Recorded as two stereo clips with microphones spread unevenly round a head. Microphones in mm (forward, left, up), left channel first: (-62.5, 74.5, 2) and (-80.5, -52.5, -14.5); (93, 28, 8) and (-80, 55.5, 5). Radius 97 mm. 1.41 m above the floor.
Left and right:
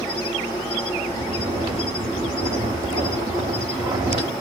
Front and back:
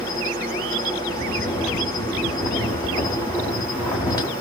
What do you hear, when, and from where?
0.0 s an insect: 50° left, 2.0 m
1.1 s snoring: 50° right, 1.1 m